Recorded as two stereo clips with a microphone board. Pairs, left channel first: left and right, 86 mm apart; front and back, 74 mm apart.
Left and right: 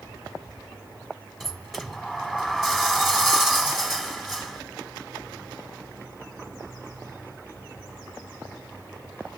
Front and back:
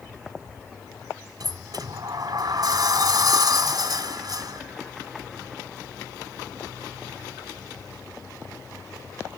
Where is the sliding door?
175° right, 1.5 m.